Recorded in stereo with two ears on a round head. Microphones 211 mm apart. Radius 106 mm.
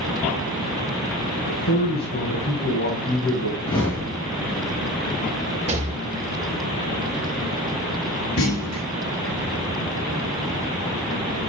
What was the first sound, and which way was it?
A man speaking, 40° left (ahead or behind).